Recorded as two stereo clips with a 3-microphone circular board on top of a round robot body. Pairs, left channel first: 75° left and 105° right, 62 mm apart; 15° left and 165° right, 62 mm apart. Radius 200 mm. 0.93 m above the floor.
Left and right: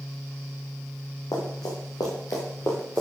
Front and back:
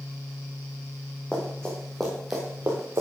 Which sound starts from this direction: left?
Running footsteps, at 1.3 s.